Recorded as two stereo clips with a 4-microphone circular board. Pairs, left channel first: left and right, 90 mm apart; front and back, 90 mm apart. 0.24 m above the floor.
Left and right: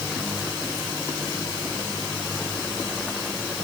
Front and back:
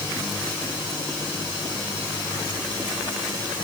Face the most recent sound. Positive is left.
No sound to turn to.